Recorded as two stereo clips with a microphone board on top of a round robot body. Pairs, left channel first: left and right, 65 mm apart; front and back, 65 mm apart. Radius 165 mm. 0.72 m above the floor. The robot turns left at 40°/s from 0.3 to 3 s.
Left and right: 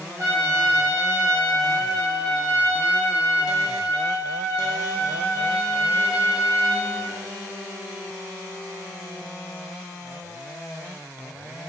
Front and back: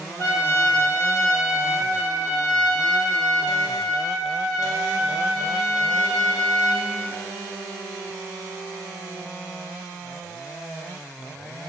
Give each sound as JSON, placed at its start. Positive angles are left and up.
{"t": 0.2, "sound": "a trumpet", "azimuth_deg": -50, "distance_m": 1.0}